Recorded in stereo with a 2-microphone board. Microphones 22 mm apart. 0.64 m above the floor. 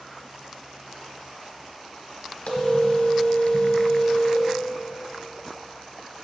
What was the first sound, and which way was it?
A phone ringing, 65° left (ahead or behind).